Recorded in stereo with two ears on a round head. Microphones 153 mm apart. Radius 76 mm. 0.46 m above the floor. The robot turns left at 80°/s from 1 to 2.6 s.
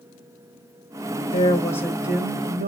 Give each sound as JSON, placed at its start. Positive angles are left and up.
{"t": 1.3, "sound": "a woman speaking", "azimuth_deg": 50, "distance_m": 1.6}